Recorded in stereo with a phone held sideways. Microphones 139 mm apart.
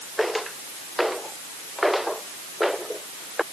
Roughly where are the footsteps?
Centre.